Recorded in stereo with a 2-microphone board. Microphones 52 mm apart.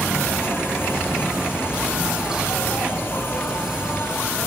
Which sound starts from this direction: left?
An insect, at 0.0 s.